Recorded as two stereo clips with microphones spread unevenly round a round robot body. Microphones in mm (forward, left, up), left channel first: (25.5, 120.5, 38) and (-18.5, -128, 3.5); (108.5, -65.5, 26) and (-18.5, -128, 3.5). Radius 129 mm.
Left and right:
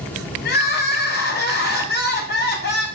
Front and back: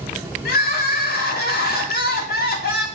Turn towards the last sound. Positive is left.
turn(degrees=25)